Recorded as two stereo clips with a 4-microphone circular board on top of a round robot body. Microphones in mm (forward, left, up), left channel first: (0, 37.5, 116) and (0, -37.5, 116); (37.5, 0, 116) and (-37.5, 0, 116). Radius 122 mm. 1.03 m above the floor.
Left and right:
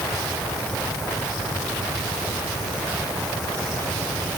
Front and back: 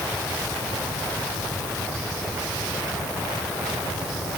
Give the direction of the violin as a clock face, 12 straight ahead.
I don't hear a violin.